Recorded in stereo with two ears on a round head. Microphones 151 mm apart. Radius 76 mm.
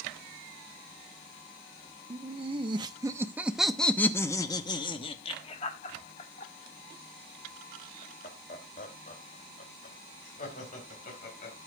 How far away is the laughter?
About 1.1 m.